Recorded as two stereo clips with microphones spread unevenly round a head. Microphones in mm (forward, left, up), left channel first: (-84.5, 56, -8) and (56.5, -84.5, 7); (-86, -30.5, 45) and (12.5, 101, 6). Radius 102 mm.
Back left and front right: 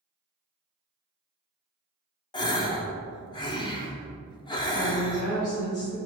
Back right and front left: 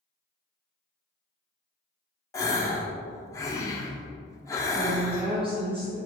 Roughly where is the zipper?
No zipper in this recording.